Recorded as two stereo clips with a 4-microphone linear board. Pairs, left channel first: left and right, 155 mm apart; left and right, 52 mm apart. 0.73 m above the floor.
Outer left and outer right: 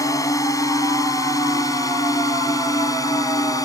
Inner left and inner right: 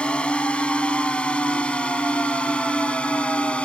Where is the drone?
20° left (ahead or behind).